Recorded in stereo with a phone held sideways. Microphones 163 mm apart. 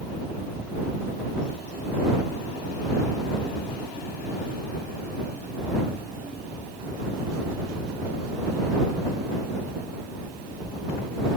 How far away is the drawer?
I don't hear a drawer.